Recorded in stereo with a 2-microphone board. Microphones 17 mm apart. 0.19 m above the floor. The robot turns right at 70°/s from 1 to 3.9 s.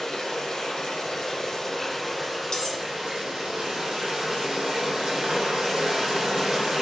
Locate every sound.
0.0 s running water: 95° left, 1.4 m; by 6.8 s 60° right, 1.4 m
2.5 s cutlery clinking: 50° left (ahead or behind), 0.9 m; by 2.8 s 40° left (ahead or behind), 0.9 m